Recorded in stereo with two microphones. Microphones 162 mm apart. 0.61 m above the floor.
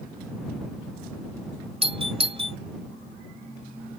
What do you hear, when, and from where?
1.8 s a doorbell: 40° right (ahead or behind)